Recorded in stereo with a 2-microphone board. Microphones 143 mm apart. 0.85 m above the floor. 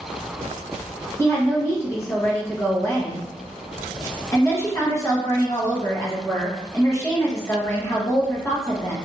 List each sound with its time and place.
1.2 s a woman speaking: 20° left (ahead or behind), 1.0 m